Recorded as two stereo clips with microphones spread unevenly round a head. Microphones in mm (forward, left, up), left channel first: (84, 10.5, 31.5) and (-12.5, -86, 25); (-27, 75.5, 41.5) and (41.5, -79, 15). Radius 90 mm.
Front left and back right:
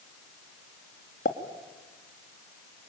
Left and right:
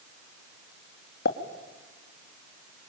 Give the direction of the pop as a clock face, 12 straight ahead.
9 o'clock.